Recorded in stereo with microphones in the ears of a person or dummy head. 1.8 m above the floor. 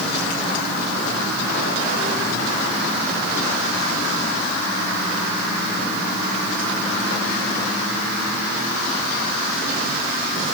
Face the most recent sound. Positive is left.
No sound to turn to.